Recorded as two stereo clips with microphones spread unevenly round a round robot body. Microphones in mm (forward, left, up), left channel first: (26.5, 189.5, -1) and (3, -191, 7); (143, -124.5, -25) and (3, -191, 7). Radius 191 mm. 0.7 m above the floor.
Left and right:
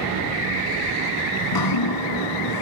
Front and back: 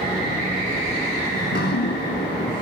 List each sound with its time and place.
1.4 s dripping: 50° left, 1.1 m